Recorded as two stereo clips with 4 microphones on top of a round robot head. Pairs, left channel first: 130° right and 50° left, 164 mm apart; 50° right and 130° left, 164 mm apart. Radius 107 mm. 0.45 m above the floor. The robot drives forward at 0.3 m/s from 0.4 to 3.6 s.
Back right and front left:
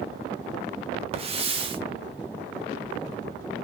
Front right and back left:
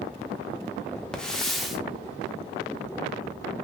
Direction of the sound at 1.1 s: 30° left.